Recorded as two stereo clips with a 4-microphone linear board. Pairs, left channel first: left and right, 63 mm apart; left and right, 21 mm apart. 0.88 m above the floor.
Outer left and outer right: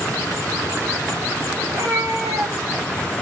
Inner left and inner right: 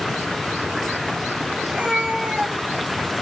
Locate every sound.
1.6 s a cat meowing: 85° right, 1.7 m; by 3.1 s 40° right (ahead or behind), 1.9 m